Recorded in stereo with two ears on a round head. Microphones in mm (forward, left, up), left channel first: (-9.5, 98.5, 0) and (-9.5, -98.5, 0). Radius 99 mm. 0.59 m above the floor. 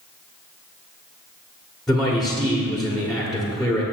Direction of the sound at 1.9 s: Centre (ahead or behind).